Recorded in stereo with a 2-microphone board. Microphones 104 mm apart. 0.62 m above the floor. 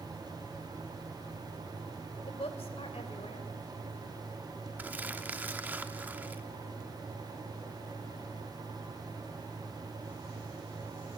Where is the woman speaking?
70° left (ahead or behind), 3 m.